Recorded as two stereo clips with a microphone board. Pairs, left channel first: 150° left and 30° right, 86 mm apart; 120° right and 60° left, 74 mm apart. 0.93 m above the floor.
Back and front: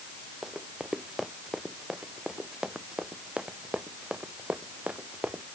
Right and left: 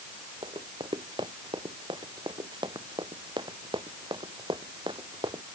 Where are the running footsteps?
55° left; by 5.4 s 45° left.